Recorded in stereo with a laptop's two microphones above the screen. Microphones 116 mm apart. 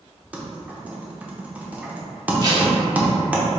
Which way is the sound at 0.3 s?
10° right (ahead or behind).